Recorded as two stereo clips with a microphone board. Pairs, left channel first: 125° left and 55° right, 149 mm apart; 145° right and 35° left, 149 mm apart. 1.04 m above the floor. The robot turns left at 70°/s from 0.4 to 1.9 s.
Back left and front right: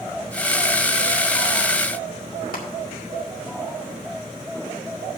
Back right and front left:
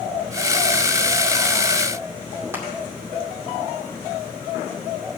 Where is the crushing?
110° left, 2 m.